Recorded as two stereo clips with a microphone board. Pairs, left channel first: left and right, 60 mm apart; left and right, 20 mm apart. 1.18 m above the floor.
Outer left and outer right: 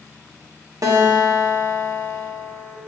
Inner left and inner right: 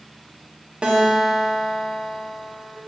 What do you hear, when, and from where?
0.8 s a guitar: 70° right (ahead or behind), 1.3 m